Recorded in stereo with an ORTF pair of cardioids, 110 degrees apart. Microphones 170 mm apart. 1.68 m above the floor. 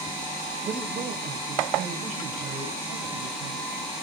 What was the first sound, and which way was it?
A man speaking, 40° right.